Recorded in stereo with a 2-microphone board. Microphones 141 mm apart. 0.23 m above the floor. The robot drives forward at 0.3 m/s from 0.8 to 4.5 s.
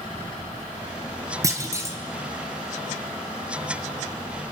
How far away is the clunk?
About 0.9 m.